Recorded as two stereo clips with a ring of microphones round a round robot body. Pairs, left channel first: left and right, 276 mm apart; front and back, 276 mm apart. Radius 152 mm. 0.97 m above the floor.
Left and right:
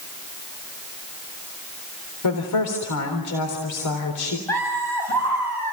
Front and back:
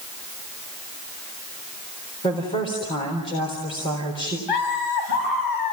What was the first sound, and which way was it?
A woman speaking, 75° left.